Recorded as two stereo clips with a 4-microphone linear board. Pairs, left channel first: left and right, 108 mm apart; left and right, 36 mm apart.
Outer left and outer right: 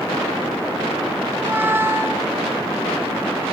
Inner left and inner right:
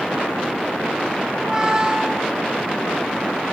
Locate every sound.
1.3 s a squeak: 25° right (ahead or behind), 0.8 m